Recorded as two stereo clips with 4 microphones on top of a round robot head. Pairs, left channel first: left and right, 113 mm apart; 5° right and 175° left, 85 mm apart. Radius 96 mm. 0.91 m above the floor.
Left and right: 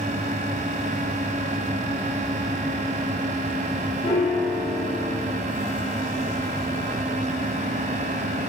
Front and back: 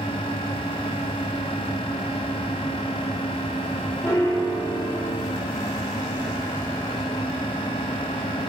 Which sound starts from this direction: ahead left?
A piano, at 4.0 s.